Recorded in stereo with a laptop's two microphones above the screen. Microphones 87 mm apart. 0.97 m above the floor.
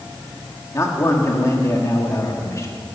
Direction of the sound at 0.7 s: 35° left (ahead or behind).